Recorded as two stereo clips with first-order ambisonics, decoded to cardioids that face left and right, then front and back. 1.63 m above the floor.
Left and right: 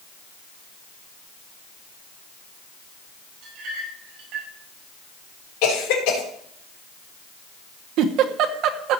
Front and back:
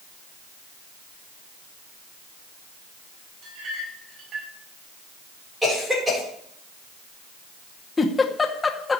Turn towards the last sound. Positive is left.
turn(degrees=-75)